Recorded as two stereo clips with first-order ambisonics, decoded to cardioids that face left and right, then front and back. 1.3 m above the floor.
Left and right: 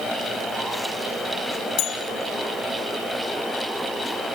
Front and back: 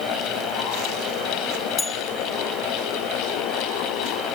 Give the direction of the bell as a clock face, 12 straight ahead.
10 o'clock.